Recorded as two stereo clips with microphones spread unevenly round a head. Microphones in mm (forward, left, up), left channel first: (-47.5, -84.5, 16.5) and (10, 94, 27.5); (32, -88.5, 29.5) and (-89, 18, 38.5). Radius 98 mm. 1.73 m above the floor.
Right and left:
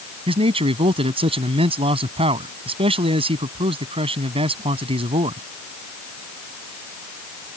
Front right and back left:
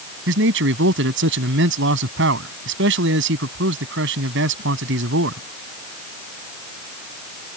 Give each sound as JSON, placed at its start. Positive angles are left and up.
{"t": 0.3, "sound": "a man speaking", "azimuth_deg": 135}